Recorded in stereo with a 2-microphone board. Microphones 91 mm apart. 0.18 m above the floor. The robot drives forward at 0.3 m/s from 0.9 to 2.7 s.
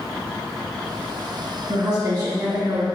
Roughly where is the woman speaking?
Right.